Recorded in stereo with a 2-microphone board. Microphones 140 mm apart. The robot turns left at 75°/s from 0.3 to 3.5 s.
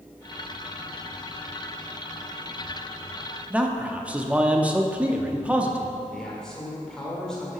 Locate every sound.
3.5 s a man speaking: 10° right (ahead or behind), 0.7 m
6.1 s a man speaking: 5° left (ahead or behind), 1.7 m